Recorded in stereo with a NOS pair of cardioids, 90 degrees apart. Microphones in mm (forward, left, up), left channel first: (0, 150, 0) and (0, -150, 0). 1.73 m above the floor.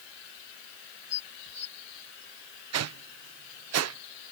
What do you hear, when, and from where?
1.1 s dishes clattering: 55° left
2.7 s a whoosh: 55° right